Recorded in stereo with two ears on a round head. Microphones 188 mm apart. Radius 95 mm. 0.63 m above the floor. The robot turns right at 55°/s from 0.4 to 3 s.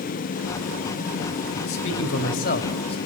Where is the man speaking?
80° left, 3.5 m; by 3.0 s 150° left, 3.5 m.